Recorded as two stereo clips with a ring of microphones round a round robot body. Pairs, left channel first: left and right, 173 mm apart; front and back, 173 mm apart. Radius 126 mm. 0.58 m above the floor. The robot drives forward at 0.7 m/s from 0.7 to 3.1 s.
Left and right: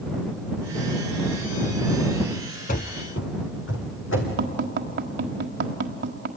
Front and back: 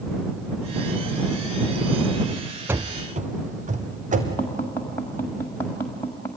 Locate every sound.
2.7 s running footsteps: 105° left, 0.7 m; by 4.3 s 135° left, 3 m
4.4 s tapping: 80° right, 1.5 m